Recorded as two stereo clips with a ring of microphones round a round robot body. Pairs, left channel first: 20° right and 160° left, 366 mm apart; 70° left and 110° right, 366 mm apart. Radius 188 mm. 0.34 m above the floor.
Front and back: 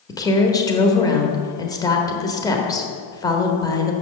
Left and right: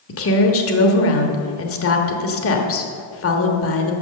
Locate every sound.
0.1 s a woman speaking: 50° left, 1.2 m